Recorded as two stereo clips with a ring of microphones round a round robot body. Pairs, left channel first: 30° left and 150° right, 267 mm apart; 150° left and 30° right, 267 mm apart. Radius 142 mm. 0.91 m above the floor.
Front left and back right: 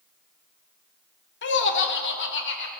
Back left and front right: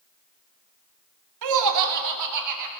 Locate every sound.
1.4 s laughter: 20° right, 2 m; by 2.7 s 15° right, 4 m